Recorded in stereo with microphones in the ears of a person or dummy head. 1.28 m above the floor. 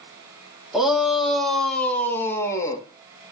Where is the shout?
5° right (ahead or behind), 2.5 m; by 2.8 s 20° left (ahead or behind), 1.9 m.